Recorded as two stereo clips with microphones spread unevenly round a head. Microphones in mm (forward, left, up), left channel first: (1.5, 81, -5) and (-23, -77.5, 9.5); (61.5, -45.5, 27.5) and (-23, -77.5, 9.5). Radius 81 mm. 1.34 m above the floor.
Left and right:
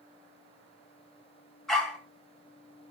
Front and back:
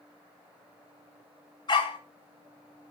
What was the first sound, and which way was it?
A dog barking, 10° right.